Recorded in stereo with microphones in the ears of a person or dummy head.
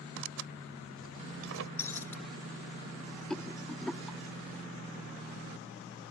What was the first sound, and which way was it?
Tearing paper, 75° right (ahead or behind).